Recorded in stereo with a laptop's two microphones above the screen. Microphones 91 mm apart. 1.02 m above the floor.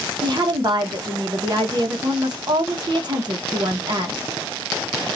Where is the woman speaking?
50° right (ahead or behind), 1.0 m.